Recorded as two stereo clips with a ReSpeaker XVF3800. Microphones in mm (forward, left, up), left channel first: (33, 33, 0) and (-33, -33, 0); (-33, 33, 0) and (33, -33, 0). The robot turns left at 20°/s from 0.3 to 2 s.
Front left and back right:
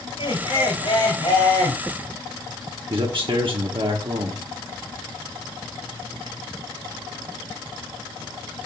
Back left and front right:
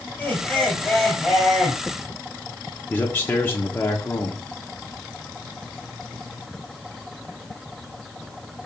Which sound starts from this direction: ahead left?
Laughter, at 0.2 s.